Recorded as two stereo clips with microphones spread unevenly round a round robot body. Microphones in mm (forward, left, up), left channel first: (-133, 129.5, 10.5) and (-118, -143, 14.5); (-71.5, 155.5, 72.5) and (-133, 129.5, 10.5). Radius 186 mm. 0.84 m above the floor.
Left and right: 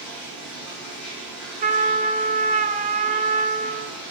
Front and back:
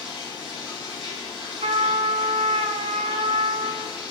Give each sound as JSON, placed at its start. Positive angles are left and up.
{"t": 0.0, "sound": "running water", "azimuth_deg": 5, "distance_m": 3.5}
{"t": 1.6, "sound": "a trumpet", "azimuth_deg": -145, "distance_m": 0.8}